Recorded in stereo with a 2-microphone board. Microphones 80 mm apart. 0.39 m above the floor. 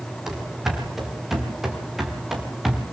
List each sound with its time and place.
0.3 s running footsteps: 5° right (ahead or behind), 6.5 m